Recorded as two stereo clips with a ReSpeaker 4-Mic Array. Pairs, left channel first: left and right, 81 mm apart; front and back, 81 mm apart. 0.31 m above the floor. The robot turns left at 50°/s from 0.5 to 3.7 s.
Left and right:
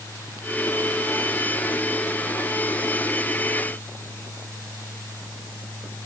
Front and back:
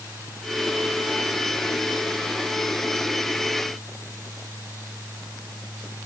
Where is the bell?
No bell in this recording.